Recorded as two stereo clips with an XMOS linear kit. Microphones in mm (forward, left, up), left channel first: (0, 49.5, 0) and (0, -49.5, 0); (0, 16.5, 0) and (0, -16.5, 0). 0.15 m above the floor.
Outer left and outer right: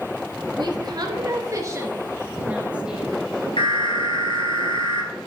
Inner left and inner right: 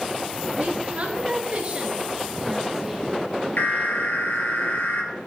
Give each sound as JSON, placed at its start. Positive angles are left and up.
{"t": 0.6, "sound": "a woman speaking", "side_deg": -55, "distance_m": 2.0}
{"t": 3.6, "sound": "an alarm", "side_deg": 65, "distance_m": 2.0}